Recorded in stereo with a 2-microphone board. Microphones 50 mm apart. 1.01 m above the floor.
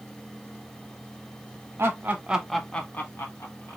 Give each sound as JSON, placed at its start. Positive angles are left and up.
{"t": 1.8, "sound": "laughter", "side_deg": -50, "distance_m": 1.2}